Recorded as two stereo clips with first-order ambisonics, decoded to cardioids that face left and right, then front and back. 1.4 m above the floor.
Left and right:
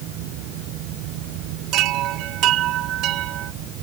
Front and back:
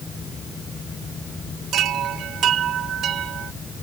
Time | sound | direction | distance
1.7 | a chime | 130° right | ?